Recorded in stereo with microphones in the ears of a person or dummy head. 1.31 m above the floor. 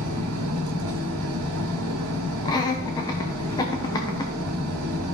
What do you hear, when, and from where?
0.0 s an engine running: 85° right, 2 m
2.5 s laughter: 20° left (ahead or behind), 0.9 m